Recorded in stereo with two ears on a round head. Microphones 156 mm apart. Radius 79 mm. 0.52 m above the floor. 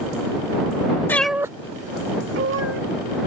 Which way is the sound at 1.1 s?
10° left (ahead or behind).